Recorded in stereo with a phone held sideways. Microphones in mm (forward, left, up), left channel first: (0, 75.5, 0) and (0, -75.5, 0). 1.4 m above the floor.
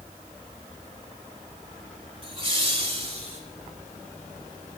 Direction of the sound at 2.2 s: 40° right (ahead or behind).